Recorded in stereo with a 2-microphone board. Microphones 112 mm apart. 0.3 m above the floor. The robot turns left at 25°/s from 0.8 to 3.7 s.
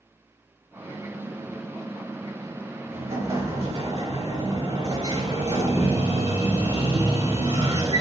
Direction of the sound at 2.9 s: 70° right (ahead or behind).